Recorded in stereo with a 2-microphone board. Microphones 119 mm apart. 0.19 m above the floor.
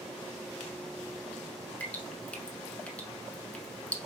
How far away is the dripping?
About 0.9 m.